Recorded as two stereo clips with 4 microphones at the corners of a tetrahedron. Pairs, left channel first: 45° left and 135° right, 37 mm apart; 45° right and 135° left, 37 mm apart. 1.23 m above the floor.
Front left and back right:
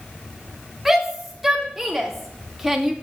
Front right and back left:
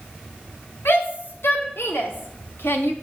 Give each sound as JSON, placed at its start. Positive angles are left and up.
{"t": 0.8, "sound": "a shout", "azimuth_deg": -50, "distance_m": 3.5}